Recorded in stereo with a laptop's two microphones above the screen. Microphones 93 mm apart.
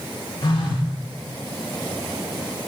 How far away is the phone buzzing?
About 3 m.